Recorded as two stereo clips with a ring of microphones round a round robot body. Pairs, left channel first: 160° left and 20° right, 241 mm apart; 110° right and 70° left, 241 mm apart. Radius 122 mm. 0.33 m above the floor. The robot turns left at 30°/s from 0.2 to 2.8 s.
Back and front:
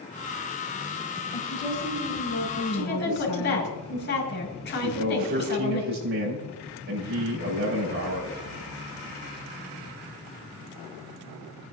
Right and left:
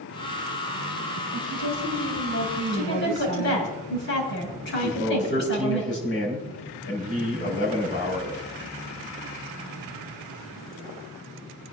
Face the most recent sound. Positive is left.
turn(degrees=-70)